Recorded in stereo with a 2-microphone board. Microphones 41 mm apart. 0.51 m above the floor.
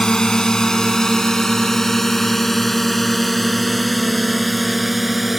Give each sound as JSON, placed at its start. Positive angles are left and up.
{"t": 0.0, "sound": "a drone", "side_deg": 20}